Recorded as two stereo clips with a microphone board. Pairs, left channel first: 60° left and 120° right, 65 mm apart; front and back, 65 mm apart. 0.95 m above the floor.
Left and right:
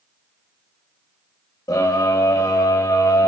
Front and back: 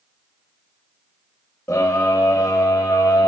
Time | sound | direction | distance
1.7 | a scream | 50° left | 4.5 m